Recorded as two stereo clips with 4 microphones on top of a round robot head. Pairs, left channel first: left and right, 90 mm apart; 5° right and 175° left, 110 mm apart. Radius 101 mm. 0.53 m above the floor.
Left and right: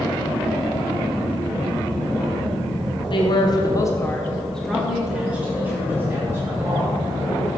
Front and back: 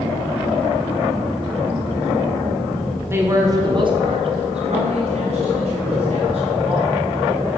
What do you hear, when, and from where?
3.1 s a man speaking: 110° left, 1.6 m; by 7.0 s 150° right, 3.5 m